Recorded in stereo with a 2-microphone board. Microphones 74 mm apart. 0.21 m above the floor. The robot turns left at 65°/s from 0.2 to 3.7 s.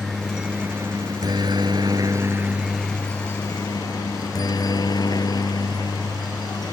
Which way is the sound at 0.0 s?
5° left (ahead or behind).